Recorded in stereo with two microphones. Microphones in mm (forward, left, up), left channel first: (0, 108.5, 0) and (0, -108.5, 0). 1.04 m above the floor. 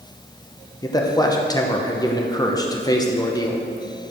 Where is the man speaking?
15° left (ahead or behind), 0.9 m.